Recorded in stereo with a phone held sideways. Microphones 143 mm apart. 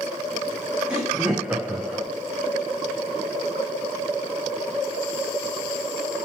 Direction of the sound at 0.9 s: 5° right (ahead or behind).